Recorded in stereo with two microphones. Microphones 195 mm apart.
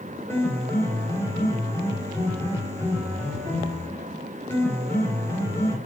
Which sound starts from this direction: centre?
A piano, at 0.3 s.